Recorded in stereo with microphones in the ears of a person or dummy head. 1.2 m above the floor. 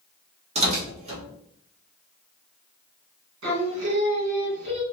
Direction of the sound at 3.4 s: 60° right (ahead or behind).